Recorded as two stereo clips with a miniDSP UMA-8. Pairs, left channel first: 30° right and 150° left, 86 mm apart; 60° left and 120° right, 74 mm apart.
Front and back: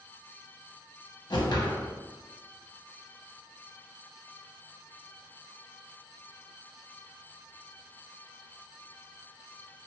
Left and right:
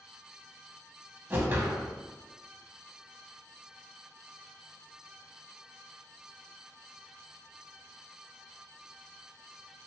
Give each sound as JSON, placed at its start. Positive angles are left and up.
{"t": 1.3, "sound": "a whoosh", "azimuth_deg": -60, "distance_m": 0.6}